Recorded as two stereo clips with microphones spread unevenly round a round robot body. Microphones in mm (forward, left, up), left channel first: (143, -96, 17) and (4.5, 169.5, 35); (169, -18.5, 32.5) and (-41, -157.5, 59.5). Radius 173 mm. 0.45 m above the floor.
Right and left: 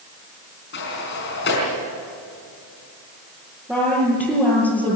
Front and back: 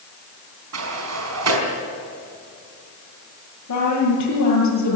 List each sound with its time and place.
0.7 s a sliding door: 125° right, 5 m
3.7 s a woman speaking: 35° left, 8 m